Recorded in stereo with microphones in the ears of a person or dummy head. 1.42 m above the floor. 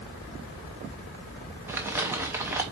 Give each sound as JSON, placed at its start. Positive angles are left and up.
{"t": 1.7, "sound": "crumpling", "side_deg": -10, "distance_m": 1.2}